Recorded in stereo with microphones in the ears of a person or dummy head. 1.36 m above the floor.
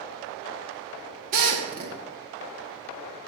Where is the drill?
45° right (ahead or behind), 2 m.